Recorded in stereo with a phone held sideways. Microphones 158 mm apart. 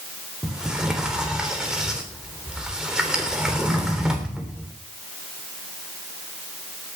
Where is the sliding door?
5° right (ahead or behind), 3.5 m.